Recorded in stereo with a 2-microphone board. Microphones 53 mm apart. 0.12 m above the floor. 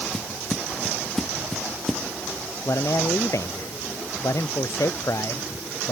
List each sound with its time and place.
0.1 s footsteps: 10° left (ahead or behind); by 2.0 s 5° left (ahead or behind)
2.6 s a man speaking: 75° left (ahead or behind)